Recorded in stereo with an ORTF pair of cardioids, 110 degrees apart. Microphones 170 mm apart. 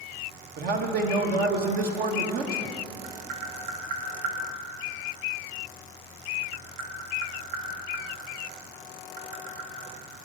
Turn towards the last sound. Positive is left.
turn(degrees=-70)